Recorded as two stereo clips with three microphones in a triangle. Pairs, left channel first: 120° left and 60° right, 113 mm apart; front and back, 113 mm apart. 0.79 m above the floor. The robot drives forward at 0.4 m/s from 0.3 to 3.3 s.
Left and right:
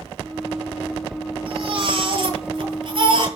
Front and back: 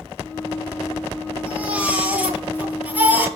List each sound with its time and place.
1.5 s a baby crying: 100° right, 9.5 m; by 3.3 s 105° right, 10 m